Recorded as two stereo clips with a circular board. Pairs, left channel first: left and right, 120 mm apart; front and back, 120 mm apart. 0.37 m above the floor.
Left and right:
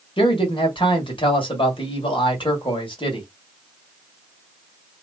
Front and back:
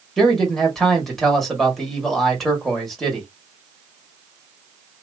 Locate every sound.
0.2 s a man speaking: 90° left, 1.6 m